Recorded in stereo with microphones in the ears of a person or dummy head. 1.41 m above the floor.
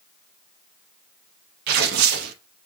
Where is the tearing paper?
60° right (ahead or behind), 0.6 m.